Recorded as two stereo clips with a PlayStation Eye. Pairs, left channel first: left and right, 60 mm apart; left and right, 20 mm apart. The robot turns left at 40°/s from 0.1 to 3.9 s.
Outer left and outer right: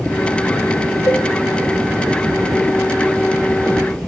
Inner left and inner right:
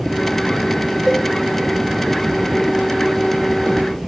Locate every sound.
1.1 s a cowbell: 35° left (ahead or behind), 2 m; by 1.3 s 30° left (ahead or behind), 2 m